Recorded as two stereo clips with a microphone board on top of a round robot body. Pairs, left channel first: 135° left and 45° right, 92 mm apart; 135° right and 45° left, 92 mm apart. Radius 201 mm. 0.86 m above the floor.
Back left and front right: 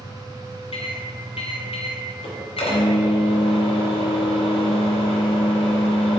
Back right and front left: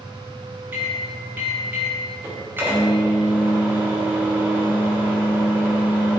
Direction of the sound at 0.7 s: 115° left.